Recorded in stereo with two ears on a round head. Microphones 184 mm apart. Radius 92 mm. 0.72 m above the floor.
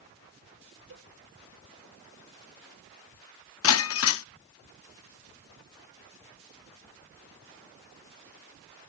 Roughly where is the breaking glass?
Left.